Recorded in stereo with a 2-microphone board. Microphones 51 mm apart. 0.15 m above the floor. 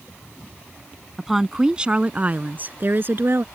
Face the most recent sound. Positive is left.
turn(degrees=-55)  # may be behind; listen again after turning